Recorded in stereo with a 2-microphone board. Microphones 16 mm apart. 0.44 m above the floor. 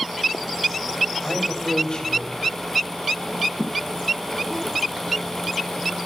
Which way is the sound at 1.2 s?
55° left (ahead or behind).